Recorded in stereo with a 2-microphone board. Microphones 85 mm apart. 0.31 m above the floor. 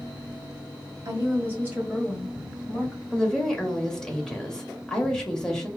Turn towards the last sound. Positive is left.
turn(degrees=5)  # may be behind; listen again after turning